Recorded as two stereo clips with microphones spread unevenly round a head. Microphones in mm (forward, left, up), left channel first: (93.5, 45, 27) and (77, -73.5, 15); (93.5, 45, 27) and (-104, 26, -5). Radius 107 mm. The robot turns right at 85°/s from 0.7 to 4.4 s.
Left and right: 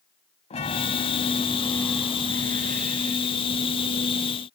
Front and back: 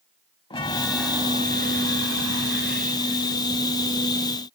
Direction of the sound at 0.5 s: 65° left.